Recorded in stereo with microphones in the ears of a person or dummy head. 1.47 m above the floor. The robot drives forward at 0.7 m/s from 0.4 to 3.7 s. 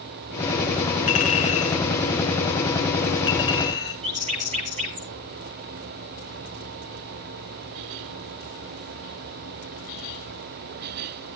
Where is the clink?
40° left (ahead or behind), 2.5 m; by 3.9 s 25° left (ahead or behind), 4.5 m.